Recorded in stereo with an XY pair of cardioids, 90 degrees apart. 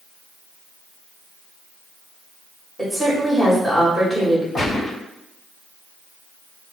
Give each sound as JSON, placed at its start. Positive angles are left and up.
{"t": 2.8, "sound": "a woman speaking", "azimuth_deg": 0, "distance_m": 1.5}
{"t": 4.5, "sound": "a gunshot", "azimuth_deg": 50, "distance_m": 1.4}